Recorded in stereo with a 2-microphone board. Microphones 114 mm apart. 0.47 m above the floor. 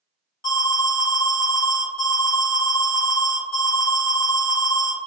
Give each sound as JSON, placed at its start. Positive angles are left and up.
{"t": 0.4, "sound": "an alarm", "side_deg": 35, "distance_m": 2.0}